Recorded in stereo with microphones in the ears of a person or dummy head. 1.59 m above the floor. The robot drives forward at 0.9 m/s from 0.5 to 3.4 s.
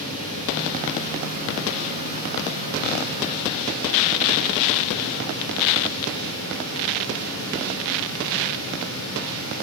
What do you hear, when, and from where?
0.0 s running water: 45° right (ahead or behind), 6 m; by 9.6 s 70° right (ahead or behind), 4.5 m